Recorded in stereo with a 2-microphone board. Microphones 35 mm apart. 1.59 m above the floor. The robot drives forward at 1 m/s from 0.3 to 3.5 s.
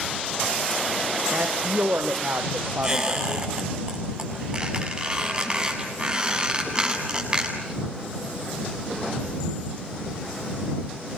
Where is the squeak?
20° right (ahead or behind), 8 m; by 7.8 s 25° right (ahead or behind), 7.5 m.